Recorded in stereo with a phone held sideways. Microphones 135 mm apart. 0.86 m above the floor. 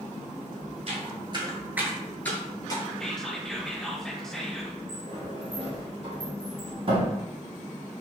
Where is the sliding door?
40° right (ahead or behind), 0.9 m.